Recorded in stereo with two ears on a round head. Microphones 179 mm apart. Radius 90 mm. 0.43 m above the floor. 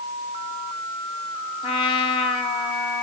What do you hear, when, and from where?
1.6 s a trumpet: 30° left (ahead or behind), 3.5 m